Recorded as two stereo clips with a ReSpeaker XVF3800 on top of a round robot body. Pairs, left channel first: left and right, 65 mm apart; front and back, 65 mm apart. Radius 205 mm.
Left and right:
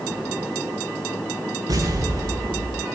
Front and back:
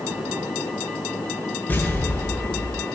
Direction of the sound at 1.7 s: 60° right.